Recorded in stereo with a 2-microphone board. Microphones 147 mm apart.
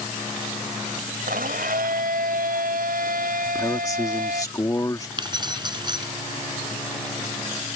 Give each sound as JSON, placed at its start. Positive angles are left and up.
{"t": 1.3, "sound": "a blender", "side_deg": -85}
{"t": 3.5, "sound": "a man speaking", "side_deg": 25}
{"t": 5.2, "sound": "keys jangling", "side_deg": -30}